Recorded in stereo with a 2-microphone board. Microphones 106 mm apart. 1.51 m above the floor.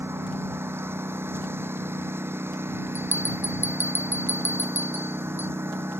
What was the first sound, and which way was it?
A lawn mower, 20° right (ahead or behind).